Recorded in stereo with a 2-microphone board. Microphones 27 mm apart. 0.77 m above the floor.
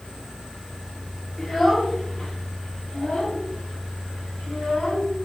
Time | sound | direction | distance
1.4 | a child speaking | 10° left (ahead or behind) | 1.2 m